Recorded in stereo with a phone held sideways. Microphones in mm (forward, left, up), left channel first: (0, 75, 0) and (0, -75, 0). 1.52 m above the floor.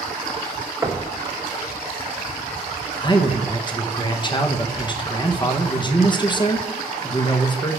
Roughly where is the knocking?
Centre.